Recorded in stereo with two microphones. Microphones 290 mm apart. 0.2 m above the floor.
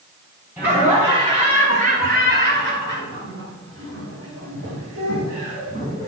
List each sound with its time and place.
0.6 s laughter: 5° right (ahead or behind), 1.7 m; by 6.1 s 50° right (ahead or behind), 3.5 m